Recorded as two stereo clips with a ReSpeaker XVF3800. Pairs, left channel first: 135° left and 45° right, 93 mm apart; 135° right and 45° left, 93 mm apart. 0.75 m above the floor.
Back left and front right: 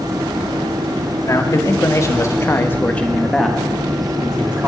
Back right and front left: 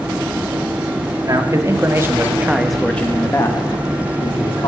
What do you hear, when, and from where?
1.3 s a man speaking: 85° left, 1.8 m; by 4.7 s 115° right, 1.9 m